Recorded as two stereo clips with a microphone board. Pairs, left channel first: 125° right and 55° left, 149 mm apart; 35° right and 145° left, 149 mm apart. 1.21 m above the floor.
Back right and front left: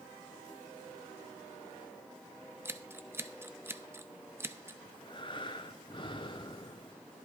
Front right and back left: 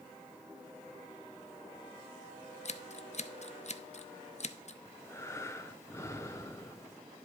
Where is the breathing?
95° right, 0.7 m.